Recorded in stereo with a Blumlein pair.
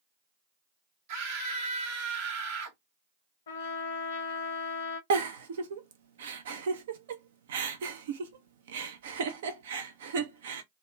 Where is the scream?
50° right, 1.0 m.